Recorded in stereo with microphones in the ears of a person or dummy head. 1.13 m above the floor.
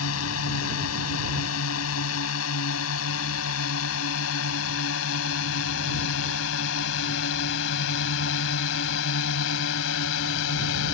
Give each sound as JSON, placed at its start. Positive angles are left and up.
{"t": 0.0, "sound": "a drone", "side_deg": 75}